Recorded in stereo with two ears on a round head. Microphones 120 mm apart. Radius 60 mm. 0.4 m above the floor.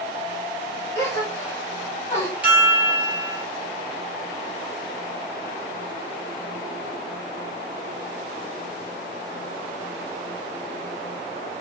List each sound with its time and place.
0.9 s a gasp: 25° left (ahead or behind), 1.7 m
2.4 s a chime: 10° right (ahead or behind), 1.4 m